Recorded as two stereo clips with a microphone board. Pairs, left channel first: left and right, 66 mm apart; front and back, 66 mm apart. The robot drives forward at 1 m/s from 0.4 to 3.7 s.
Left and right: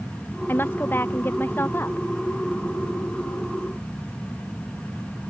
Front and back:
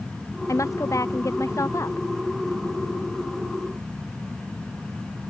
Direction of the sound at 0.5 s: 30° left.